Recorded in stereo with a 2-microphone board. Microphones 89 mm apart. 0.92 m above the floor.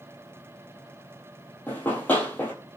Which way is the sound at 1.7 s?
20° left (ahead or behind).